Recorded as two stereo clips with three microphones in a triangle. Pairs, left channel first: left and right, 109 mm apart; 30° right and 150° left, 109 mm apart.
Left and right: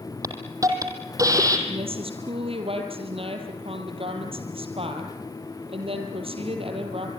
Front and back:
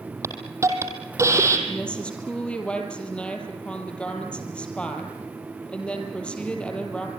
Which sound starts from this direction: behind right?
A hiss, at 0.2 s.